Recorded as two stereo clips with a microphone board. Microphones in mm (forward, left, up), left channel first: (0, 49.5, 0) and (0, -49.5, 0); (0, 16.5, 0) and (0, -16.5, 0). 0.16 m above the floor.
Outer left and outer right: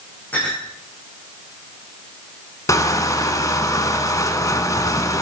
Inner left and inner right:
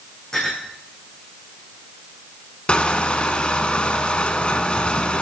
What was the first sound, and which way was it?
A clink, 15° left (ahead or behind).